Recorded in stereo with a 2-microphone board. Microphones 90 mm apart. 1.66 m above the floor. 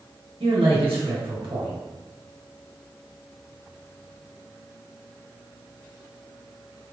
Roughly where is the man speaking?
Right.